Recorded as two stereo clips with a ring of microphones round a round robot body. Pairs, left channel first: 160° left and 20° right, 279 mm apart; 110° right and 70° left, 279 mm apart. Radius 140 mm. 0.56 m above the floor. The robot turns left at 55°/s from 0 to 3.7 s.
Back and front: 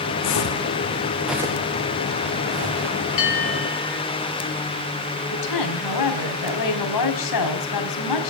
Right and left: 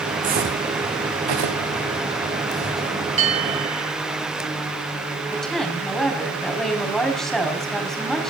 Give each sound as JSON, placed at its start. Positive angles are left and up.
{"t": 0.2, "sound": "footsteps", "azimuth_deg": 135, "distance_m": 2.5}
{"t": 3.2, "sound": "a bell", "azimuth_deg": 135, "distance_m": 9.5}
{"t": 5.3, "sound": "a woman speaking", "azimuth_deg": 160, "distance_m": 4.5}